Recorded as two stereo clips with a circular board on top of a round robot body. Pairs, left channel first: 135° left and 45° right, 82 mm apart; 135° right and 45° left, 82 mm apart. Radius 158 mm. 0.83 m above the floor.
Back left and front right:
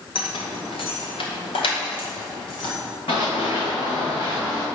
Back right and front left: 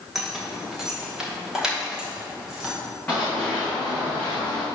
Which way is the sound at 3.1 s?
150° left.